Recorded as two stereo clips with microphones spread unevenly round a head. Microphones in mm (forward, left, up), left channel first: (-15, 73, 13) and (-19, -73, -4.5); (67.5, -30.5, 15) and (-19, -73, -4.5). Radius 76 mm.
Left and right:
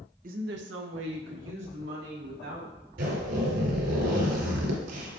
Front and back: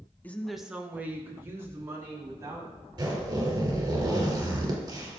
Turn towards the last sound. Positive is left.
turn(degrees=-100)